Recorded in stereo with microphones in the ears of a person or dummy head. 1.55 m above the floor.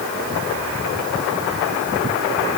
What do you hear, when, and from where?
Only background noise.